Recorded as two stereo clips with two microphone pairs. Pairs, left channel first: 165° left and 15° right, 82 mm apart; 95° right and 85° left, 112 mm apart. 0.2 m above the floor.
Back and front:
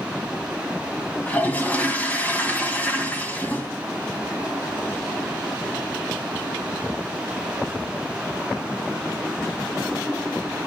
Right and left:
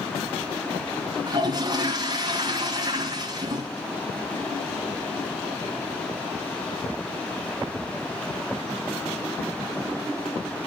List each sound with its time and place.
1.3 s a toilet flushing: 105° left, 2.0 m